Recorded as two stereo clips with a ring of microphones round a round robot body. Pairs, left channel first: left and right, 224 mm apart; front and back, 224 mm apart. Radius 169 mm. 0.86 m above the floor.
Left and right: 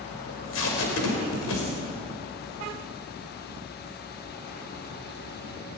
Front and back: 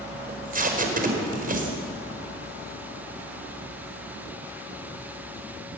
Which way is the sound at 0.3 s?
130° left.